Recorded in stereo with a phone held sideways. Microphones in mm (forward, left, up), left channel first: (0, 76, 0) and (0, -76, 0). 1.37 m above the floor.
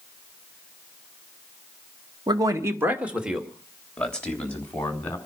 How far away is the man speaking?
About 1.7 m.